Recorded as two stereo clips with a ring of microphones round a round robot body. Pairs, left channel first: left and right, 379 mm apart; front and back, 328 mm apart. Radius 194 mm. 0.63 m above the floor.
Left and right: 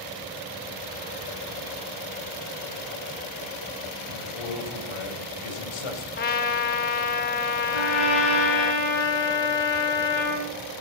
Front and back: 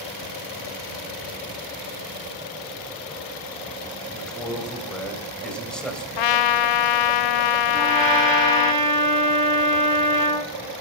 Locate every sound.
4.1 s a man speaking: 90° left, 3.5 m
6.2 s a trumpet: 20° left, 0.6 m
7.7 s a trumpet: 105° left, 8 m